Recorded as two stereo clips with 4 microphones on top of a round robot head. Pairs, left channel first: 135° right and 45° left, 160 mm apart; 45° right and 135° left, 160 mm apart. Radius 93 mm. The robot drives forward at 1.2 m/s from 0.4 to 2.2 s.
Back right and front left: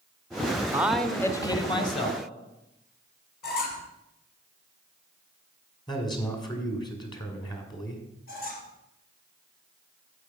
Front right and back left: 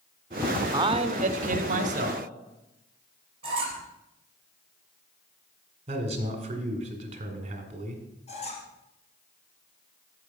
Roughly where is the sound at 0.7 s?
Left.